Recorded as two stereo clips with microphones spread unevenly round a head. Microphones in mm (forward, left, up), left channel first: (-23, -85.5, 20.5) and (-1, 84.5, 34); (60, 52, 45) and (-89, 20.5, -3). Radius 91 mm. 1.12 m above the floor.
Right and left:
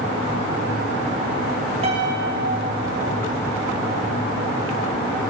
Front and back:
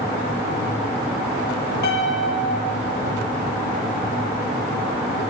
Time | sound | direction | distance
1.8 | a piano | 25° left | 3 m